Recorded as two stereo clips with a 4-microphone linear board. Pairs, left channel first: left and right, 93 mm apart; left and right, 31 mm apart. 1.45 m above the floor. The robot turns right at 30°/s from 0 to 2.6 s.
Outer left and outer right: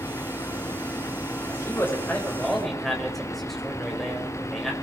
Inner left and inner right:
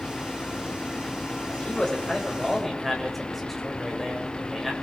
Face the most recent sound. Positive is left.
turn(degrees=180)